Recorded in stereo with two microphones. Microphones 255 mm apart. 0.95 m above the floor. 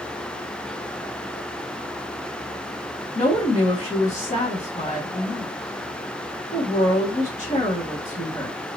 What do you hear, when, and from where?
3.1 s a woman speaking: 25° left (ahead or behind), 0.9 m